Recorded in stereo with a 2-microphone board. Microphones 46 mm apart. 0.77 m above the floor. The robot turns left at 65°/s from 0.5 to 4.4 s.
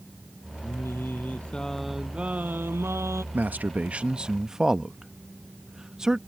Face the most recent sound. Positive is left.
turn(degrees=-15)  # may be behind; listen again after turning